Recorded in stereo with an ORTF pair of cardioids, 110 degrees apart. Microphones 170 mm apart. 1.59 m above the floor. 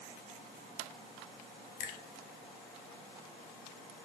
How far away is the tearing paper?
I don't hear tearing paper.